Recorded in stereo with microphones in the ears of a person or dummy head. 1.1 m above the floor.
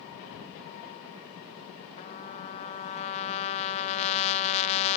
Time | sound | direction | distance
2.0 | a trumpet | 40° left (ahead or behind) | ?